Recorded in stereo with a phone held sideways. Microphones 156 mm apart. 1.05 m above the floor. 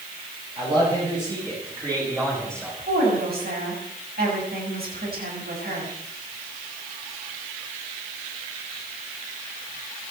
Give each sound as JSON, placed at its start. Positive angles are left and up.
{"t": 0.6, "sound": "a man speaking", "side_deg": -35, "distance_m": 7.5}
{"t": 2.8, "sound": "a woman speaking", "side_deg": -85, "distance_m": 6.5}